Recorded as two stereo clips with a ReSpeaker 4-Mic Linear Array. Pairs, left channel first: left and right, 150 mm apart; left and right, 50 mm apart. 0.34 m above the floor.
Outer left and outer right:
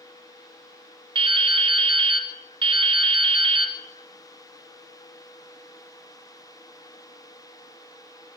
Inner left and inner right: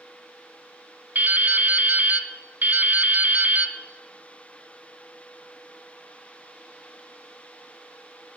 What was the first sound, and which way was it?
Dripping, 40° right (ahead or behind).